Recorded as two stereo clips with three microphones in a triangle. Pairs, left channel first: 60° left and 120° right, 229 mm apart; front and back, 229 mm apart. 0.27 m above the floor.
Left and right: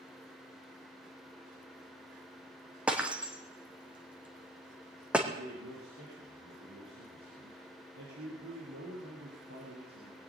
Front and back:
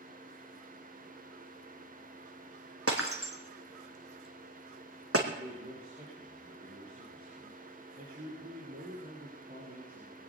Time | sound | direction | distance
2.9 | breaking glass | 155° left | 2.5 m
5.3 | a man speaking | 130° right | 6 m